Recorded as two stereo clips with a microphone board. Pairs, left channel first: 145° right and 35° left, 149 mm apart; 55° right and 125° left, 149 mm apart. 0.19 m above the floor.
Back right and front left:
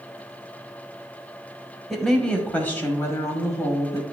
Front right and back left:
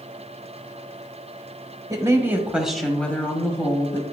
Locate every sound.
1.9 s a woman speaking: 125° left, 1.0 m; by 4.0 s 95° right, 1.2 m